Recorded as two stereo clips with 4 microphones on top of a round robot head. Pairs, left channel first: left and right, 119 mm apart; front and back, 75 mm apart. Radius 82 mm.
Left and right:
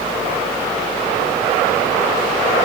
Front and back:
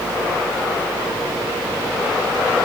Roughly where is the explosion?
I don't hear an explosion.